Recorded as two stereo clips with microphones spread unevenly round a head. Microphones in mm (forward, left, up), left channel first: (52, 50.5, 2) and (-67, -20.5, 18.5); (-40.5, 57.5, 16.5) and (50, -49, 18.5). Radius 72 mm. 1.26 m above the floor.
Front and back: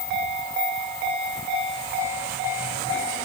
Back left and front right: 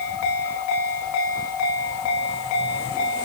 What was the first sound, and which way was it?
Only background noise.